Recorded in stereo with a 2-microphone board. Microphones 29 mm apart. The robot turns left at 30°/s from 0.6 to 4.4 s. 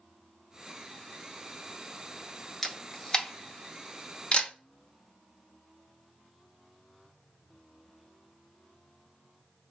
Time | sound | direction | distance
2.6 | a camera shutter | 10° left (ahead or behind) | 0.5 m